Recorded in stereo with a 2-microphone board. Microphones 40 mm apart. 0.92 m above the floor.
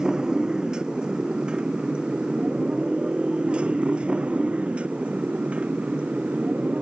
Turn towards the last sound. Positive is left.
turn(degrees=-35)  # may be behind; listen again after turning